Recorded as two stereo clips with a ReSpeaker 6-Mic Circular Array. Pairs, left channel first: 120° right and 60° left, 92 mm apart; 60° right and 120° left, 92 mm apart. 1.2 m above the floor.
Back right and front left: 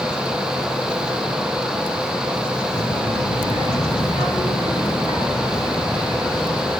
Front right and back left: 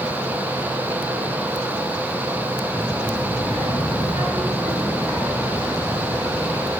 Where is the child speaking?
140° right, 5 m; by 6.7 s 160° right, 9 m.